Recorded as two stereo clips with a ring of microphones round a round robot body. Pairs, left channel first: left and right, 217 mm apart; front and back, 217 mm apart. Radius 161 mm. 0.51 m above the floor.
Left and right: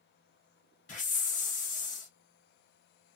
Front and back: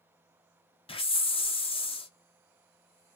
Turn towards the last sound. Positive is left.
turn(degrees=55)